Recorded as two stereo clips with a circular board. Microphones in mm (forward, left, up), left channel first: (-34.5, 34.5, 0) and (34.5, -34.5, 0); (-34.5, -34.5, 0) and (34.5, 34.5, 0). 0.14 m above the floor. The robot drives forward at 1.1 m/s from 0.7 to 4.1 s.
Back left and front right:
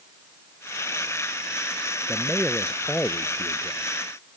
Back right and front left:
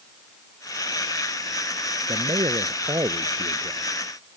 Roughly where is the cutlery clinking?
I don't hear cutlery clinking.